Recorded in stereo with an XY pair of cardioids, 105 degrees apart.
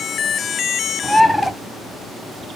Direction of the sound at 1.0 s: Straight ahead.